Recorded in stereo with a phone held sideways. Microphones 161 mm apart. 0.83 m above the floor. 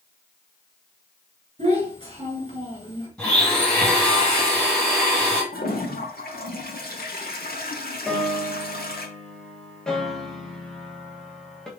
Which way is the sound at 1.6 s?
40° right (ahead or behind).